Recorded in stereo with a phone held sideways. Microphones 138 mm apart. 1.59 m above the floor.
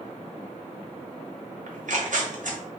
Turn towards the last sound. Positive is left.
turn(degrees=-70)  # may be behind; listen again after turning